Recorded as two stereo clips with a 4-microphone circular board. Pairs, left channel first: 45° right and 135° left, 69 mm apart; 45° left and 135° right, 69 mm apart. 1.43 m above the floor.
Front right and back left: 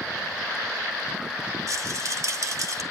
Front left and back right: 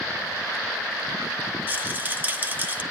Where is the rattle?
165° left, 1.5 m.